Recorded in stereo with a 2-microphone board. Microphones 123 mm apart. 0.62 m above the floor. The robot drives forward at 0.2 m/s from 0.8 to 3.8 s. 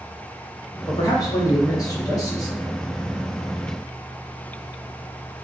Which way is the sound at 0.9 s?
30° left (ahead or behind).